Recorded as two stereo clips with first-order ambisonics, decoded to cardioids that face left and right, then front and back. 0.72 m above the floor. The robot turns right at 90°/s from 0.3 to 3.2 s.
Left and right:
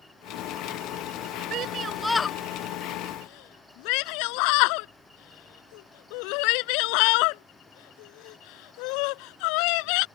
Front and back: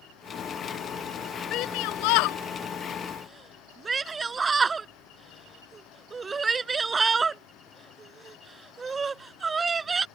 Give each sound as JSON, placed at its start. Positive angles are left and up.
{"t": 1.5, "sound": "a shout", "azimuth_deg": -45}